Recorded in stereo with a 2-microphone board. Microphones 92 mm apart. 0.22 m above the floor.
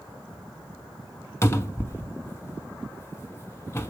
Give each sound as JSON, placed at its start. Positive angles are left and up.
{"t": 1.4, "sound": "a cupboard door", "side_deg": 30, "distance_m": 0.6}